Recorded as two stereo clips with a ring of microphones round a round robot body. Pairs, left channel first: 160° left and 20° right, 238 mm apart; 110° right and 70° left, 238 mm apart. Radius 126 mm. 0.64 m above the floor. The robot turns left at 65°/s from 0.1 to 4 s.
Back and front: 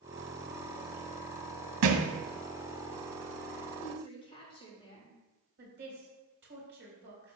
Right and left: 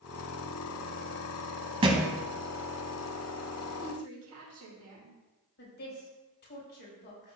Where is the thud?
Straight ahead, 1.0 m; by 2.1 s 20° right, 1.0 m.